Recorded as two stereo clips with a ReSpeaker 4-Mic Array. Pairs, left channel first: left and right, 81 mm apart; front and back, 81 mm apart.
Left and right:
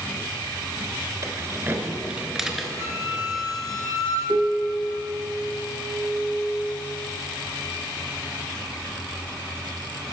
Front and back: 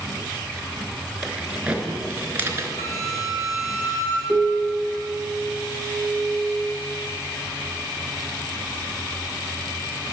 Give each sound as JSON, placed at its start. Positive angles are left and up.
{"t": 1.2, "sound": "keys jangling", "azimuth_deg": -100, "distance_m": 1.1}
{"t": 2.8, "sound": "a flute", "azimuth_deg": -35, "distance_m": 2.0}
{"t": 4.3, "sound": "a piano", "azimuth_deg": -95, "distance_m": 0.7}